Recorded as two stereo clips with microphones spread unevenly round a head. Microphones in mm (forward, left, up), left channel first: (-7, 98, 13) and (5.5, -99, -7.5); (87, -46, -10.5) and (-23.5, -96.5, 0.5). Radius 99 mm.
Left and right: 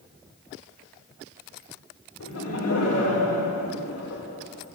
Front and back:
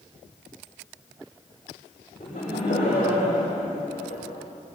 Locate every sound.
2.2 s laughter: 85° left, 6.5 m